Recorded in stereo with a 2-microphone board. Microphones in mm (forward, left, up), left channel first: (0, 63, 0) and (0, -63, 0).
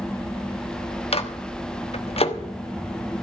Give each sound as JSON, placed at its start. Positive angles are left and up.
{"t": 1.1, "sound": "a microwave", "side_deg": 50, "distance_m": 1.1}